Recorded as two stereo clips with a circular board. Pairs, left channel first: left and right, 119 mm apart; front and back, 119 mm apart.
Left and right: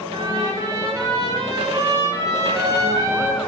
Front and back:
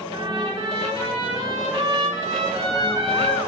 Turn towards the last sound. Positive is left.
turn(degrees=-145)